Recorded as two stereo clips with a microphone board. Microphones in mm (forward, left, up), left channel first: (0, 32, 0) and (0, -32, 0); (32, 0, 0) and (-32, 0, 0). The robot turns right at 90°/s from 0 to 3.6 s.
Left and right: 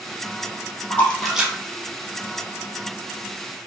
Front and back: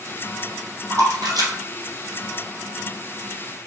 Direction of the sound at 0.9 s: 150° left.